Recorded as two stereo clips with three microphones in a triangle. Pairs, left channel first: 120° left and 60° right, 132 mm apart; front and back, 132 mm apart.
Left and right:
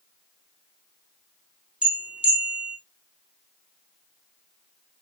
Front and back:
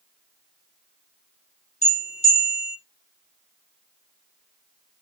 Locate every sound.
1.8 s a bell: 20° left, 2 m